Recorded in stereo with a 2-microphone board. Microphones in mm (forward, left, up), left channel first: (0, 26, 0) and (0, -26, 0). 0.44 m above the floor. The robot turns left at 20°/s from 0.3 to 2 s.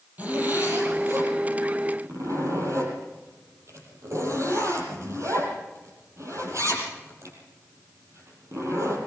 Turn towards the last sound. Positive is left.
turn(degrees=-65)  # may be behind; listen again after turning